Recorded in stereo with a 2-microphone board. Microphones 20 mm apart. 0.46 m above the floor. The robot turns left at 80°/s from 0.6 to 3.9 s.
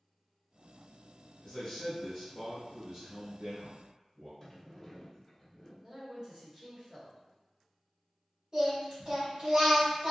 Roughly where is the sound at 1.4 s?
Left.